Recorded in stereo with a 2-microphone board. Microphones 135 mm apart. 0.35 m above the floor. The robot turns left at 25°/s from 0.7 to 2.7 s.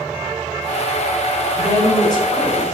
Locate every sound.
1.6 s a woman speaking: 25° left (ahead or behind), 0.9 m; by 2.6 s 30° left (ahead or behind), 0.9 m